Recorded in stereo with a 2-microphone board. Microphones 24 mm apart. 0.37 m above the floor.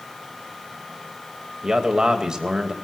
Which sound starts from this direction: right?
A man speaking, at 1.6 s.